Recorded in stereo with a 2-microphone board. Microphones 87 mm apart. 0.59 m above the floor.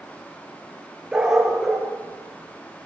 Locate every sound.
1.1 s a dog barking: 5° right (ahead or behind), 4.5 m; by 2.9 s 10° left (ahead or behind), 4 m